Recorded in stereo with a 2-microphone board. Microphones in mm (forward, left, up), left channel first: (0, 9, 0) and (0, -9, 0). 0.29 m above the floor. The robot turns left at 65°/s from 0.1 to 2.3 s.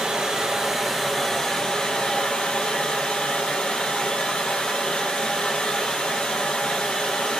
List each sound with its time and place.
0.0 s running water: 120° right, 1.6 m; by 7.4 s 100° left, 1.6 m